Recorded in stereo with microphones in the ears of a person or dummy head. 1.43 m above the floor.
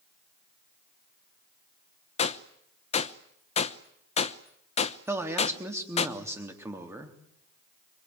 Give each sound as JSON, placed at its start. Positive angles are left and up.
{"t": 2.2, "sound": "a gunshot", "side_deg": 40, "distance_m": 0.9}
{"t": 5.1, "sound": "a man speaking", "side_deg": -10, "distance_m": 3.5}